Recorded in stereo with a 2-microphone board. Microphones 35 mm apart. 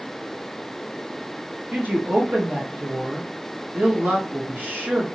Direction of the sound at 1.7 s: 60° right (ahead or behind).